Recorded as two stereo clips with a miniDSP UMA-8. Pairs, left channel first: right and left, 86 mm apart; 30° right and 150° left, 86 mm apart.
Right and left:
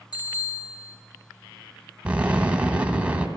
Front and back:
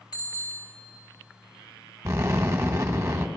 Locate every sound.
0.1 s a bicycle bell: 60° right, 3 m
2.0 s an explosion: 155° left, 0.8 m